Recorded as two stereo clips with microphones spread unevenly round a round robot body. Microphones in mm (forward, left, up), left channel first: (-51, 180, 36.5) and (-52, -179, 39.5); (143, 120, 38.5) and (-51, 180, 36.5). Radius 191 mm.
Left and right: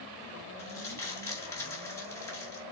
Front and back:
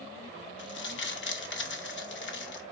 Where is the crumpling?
10° left, 1.1 m.